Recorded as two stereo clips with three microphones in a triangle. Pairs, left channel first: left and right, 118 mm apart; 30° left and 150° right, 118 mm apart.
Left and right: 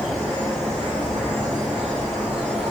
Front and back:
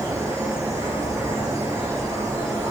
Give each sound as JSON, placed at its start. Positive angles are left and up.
{"t": 0.0, "sound": "an insect", "azimuth_deg": -90, "distance_m": 4.0}